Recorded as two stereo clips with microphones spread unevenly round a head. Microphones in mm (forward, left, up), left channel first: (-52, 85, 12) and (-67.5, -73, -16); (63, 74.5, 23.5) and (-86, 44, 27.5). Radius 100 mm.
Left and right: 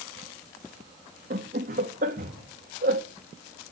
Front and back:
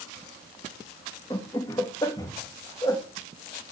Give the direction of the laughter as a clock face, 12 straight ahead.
2 o'clock.